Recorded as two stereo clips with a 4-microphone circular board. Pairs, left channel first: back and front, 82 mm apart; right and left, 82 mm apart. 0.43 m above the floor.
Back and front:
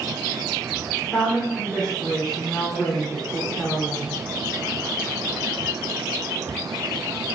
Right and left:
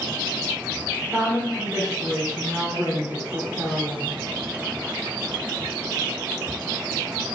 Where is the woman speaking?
110° left, 0.8 m.